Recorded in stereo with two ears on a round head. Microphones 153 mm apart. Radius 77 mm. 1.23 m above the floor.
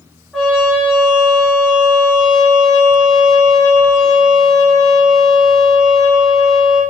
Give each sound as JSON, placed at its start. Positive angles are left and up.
{"t": 0.3, "sound": "a trumpet", "side_deg": 0, "distance_m": 3.5}